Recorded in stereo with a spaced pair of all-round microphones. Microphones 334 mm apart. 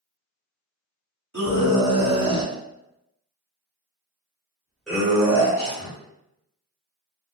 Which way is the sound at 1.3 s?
55° right (ahead or behind).